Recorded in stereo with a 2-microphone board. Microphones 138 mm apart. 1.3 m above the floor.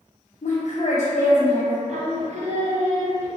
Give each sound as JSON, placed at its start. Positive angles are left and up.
{"t": 0.4, "sound": "a woman speaking", "side_deg": 60, "distance_m": 0.6}
{"t": 1.9, "sound": "singing", "side_deg": -55, "distance_m": 0.5}